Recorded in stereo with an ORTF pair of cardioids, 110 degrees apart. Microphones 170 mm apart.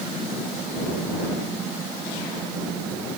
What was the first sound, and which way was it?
Only background noise.